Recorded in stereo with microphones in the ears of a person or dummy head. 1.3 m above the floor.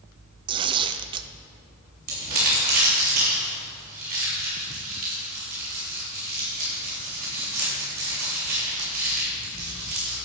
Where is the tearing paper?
25° right (ahead or behind), 0.5 m.